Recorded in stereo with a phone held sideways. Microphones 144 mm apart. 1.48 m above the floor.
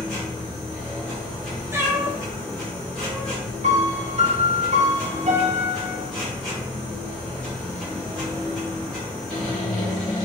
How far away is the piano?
About 0.7 m.